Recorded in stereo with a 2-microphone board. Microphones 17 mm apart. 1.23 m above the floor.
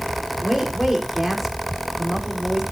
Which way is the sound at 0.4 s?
20° right (ahead or behind).